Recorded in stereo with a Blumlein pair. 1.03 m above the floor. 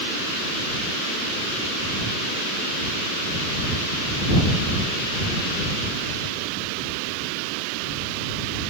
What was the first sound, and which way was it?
Only background noise.